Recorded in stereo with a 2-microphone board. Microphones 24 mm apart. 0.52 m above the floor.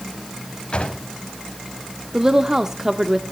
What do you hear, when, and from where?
0.7 s a drawer: 55° left (ahead or behind), 1.8 m
2.1 s a woman speaking: 20° right (ahead or behind), 0.9 m